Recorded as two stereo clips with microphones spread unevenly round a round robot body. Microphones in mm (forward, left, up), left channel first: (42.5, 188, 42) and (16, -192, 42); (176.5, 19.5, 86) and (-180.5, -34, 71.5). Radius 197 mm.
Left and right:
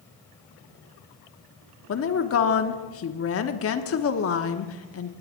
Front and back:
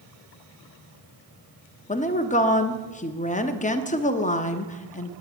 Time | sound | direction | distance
1.9 | a woman speaking | 70° left | 1.1 m